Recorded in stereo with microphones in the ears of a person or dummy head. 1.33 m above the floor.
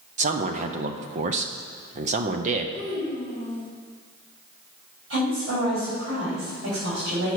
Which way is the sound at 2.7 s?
25° right (ahead or behind).